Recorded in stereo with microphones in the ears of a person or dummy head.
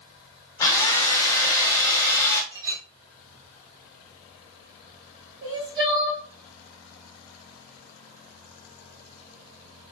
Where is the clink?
30° right (ahead or behind), 2 m.